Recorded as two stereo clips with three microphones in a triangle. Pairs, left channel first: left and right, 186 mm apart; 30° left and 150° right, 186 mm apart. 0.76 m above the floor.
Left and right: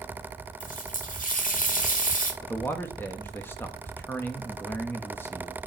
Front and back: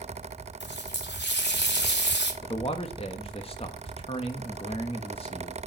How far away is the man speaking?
About 1.0 m.